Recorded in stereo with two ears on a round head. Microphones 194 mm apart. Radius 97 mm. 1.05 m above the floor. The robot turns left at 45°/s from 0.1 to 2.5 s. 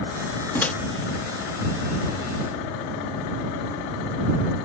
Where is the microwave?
10° left (ahead or behind); by 0.7 s 5° left (ahead or behind).